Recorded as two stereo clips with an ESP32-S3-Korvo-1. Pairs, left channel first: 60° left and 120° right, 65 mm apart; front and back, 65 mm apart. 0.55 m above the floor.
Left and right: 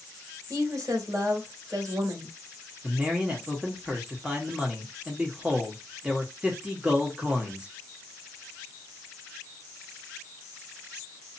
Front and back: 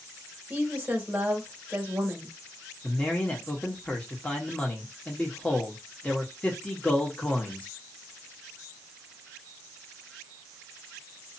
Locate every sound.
0.5 s a woman speaking: 110° right, 1.7 m
2.8 s a man speaking: 55° right, 1.2 m